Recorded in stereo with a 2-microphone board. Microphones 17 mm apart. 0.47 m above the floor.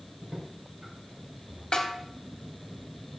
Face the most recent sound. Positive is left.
turn(degrees=50)  # may be behind; listen again after turning